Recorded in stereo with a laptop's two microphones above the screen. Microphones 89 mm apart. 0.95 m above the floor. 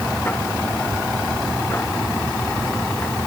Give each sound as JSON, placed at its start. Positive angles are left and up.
{"t": 0.0, "sound": "a machine running", "side_deg": 25}